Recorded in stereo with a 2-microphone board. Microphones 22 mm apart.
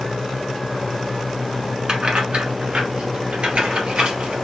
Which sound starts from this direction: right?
Keys jangling, at 1.9 s.